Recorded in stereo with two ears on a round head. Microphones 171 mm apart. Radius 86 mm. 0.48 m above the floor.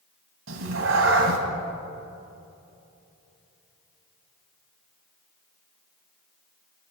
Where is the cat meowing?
75° right (ahead or behind), 1.5 m.